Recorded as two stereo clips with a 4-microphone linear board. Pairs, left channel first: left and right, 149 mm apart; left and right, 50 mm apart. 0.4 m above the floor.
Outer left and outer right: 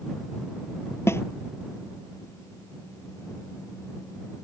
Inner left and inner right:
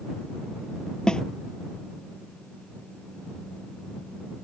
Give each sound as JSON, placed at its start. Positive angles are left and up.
{"t": 1.1, "sound": "a snare drum", "side_deg": 15}